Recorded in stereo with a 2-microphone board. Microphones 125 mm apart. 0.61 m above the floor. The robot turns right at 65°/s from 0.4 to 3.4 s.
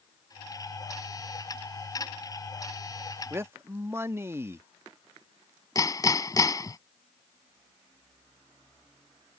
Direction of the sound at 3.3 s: 20° right (ahead or behind).